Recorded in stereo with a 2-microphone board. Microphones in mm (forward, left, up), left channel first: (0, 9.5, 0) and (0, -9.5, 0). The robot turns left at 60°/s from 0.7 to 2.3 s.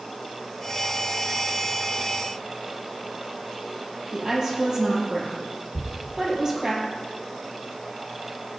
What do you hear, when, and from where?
4.1 s a woman speaking: 30° right (ahead or behind), 3 m
5.8 s a thud: 30° right (ahead or behind), 1.4 m